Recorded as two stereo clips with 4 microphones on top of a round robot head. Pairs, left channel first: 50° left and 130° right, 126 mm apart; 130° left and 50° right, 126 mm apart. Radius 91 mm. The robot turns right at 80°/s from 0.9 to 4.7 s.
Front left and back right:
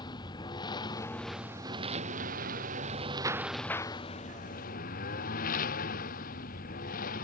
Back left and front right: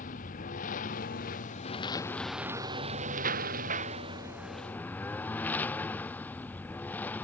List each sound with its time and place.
0.0 s a lawn mower: 110° left; by 7.2 s 50° left